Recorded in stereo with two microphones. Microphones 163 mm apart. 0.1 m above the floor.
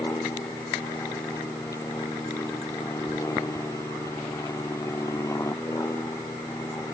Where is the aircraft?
15° left (ahead or behind).